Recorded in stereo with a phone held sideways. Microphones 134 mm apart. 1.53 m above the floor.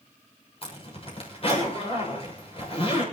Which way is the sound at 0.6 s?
45° left (ahead or behind).